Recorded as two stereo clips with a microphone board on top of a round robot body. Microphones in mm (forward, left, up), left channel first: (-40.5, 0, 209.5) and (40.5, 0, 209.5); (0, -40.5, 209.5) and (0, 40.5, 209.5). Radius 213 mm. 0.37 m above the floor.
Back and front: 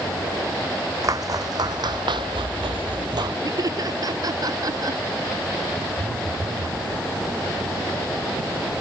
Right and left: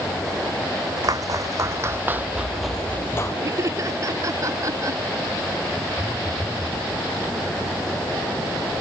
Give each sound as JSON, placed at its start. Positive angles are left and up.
{"t": 1.0, "sound": "footsteps", "azimuth_deg": 45}
{"t": 3.4, "sound": "laughter", "azimuth_deg": 40}
{"t": 6.0, "sound": "a phone buzzing", "azimuth_deg": -25}